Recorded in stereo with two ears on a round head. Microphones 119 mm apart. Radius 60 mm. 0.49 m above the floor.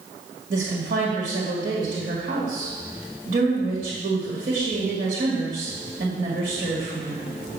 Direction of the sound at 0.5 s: 65° right (ahead or behind).